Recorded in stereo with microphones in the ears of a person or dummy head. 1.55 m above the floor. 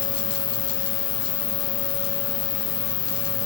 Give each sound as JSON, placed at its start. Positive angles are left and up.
{"t": 0.0, "sound": "an insect", "side_deg": 30, "distance_m": 1.3}